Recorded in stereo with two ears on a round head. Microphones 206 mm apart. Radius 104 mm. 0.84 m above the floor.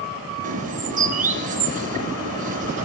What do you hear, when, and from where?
0.4 s a bird: 40° right (ahead or behind), 2 m